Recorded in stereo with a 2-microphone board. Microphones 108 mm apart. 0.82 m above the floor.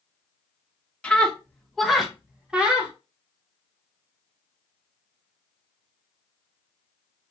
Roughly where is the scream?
Centre.